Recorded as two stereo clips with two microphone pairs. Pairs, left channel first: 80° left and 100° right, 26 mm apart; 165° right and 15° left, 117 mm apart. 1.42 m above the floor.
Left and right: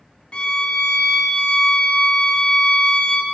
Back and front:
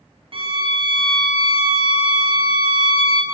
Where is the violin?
45° left, 1.0 m.